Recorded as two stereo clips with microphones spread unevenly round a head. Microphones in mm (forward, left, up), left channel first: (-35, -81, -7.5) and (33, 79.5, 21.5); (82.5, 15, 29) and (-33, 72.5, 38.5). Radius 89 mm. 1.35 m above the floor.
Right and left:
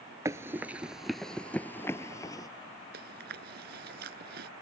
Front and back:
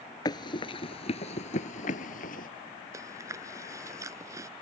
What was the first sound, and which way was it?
Running footsteps, 20° left.